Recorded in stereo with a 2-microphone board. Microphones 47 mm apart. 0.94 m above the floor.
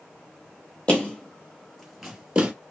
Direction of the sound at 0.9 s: 30° left (ahead or behind).